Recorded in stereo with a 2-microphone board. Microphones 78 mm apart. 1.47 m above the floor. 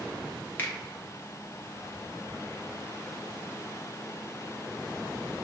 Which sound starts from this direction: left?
A finger snap, at 0.6 s.